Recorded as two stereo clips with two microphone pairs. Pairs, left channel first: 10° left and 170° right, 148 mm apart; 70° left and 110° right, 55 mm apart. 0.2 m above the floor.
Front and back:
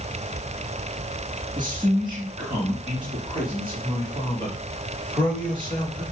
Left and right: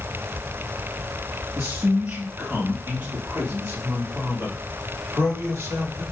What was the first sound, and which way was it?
A man speaking, 120° right.